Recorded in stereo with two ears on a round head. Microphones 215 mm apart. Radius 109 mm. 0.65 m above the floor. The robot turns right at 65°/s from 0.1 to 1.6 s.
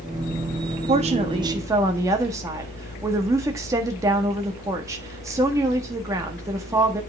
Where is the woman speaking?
70° right, 1.3 m; by 7.0 s 25° right, 1.3 m.